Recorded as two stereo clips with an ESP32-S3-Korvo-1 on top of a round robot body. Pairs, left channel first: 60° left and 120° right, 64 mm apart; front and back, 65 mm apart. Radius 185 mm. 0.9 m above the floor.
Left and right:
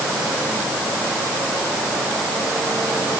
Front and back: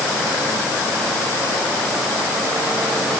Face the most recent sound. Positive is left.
No sound to turn to.